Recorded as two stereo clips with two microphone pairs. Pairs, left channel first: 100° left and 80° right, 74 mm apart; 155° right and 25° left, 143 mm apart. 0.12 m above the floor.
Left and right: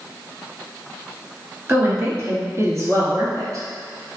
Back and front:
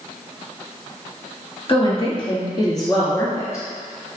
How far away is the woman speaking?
About 1.7 m.